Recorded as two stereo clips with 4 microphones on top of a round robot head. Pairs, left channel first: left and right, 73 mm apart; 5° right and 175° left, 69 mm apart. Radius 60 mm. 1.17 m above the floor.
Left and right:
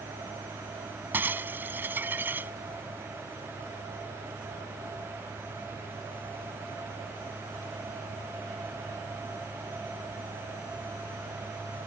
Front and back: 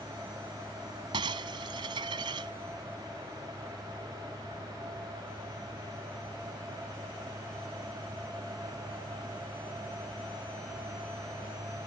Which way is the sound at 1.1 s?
150° right.